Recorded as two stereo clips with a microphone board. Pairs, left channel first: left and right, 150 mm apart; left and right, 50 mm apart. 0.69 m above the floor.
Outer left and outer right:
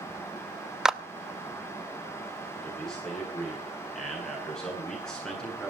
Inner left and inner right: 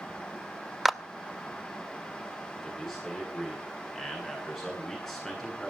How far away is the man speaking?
About 10 m.